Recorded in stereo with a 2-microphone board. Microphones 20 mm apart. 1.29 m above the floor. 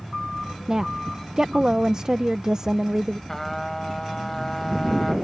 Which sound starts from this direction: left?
A trumpet, at 3.3 s.